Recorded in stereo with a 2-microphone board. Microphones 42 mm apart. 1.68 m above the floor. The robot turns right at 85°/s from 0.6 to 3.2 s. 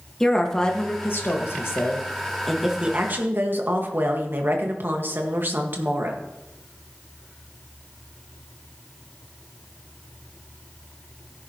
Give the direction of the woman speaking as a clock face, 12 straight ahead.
11 o'clock.